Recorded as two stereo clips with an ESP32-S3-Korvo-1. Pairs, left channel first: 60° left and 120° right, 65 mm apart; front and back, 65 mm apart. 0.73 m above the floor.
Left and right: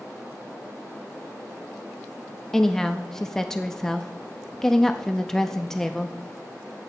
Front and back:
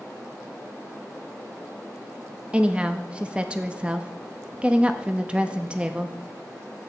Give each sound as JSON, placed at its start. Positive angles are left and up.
{"t": 2.5, "sound": "a woman speaking", "azimuth_deg": 135, "distance_m": 0.6}